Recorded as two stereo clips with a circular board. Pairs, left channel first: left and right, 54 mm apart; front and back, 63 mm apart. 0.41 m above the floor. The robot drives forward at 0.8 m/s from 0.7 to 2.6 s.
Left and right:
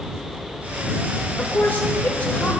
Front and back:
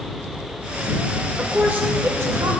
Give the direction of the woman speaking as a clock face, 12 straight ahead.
8 o'clock.